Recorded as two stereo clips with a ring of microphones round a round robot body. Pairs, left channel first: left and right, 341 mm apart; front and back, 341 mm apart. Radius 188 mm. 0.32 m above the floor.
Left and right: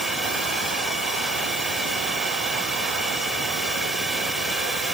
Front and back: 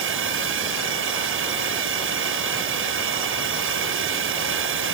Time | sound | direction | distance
0.0 | a drone | straight behind | ?